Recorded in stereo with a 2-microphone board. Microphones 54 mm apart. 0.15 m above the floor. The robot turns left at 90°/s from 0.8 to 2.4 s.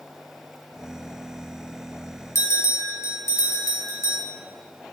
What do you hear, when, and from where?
2.4 s a bell: 60° left (ahead or behind), 2.5 m